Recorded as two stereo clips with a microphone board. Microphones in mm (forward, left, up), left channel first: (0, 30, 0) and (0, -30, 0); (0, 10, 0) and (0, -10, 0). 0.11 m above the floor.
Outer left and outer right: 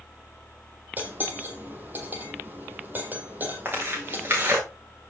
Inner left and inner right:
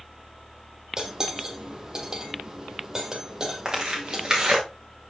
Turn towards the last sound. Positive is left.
turn(degrees=-35)  # may be behind; listen again after turning